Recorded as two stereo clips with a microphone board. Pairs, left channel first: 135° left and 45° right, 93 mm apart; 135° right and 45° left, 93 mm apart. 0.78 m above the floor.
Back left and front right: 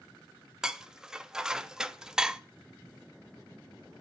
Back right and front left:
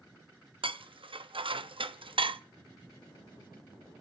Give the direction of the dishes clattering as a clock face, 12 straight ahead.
11 o'clock.